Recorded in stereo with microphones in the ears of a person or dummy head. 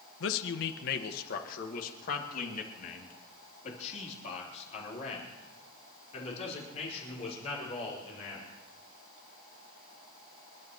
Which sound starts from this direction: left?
A man speaking, at 0.2 s.